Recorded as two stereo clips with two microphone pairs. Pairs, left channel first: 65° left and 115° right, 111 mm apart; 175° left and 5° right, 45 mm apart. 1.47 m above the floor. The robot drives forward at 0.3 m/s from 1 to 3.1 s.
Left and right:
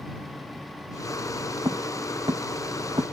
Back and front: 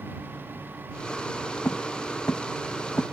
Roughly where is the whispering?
No whispering in this recording.